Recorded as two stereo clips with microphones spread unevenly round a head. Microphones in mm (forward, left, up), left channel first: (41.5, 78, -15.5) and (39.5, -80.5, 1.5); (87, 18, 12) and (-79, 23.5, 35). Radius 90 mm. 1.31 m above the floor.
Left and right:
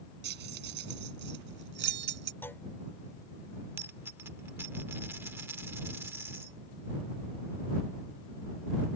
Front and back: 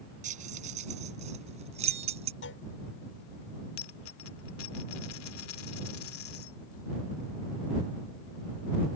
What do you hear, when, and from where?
0.2 s keys jangling: 130° right; by 2.3 s 125° right
2.4 s a clunk: 10° left
3.8 s a dropped coin: 20° right